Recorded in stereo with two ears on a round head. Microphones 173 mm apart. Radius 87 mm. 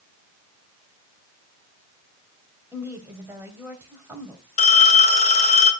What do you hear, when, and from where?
2.7 s a woman speaking: 10° right (ahead or behind), 2.5 m
4.6 s a phone ringing: 35° left (ahead or behind), 2 m